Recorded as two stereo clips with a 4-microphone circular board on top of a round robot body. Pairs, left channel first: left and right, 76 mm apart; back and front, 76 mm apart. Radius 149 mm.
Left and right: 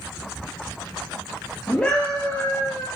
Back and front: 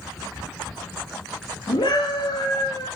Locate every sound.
1.7 s a scream: 170° left, 2.5 m; by 2.9 s 150° left, 1.9 m